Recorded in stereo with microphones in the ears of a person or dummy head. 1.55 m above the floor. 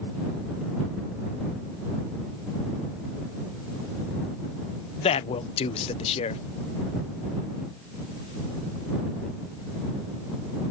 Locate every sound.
5.0 s a man speaking: 35° left (ahead or behind)